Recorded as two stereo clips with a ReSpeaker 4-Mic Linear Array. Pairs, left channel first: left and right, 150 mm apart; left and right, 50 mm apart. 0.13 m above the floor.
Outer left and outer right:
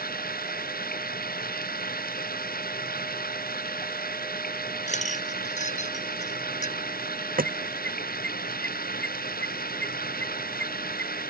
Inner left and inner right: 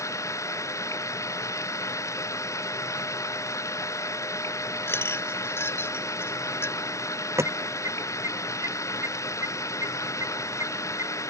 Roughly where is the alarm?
Right.